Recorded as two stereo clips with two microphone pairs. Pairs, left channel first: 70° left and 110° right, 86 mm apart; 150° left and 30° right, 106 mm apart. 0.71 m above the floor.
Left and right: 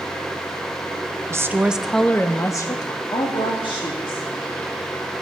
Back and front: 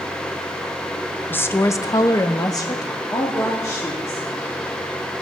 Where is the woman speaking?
145° right, 0.6 m; by 4.3 s 85° left, 1.4 m.